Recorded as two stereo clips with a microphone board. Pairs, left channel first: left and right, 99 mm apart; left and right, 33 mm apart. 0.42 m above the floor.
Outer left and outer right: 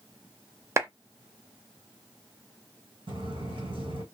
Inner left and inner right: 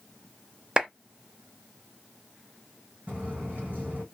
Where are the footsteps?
65° right (ahead or behind), 1.4 m.